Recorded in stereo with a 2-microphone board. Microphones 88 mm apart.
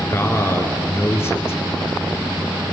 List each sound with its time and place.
0.1 s a man speaking: 30° left (ahead or behind), 1.8 m